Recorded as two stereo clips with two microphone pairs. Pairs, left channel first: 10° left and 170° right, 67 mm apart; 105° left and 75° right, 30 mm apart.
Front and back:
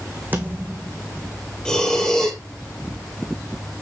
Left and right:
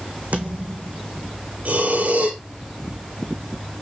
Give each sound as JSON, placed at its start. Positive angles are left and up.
{"t": 0.3, "sound": "a thud", "azimuth_deg": -105, "distance_m": 2.5}
{"t": 1.6, "sound": "breathing", "azimuth_deg": -65, "distance_m": 3.0}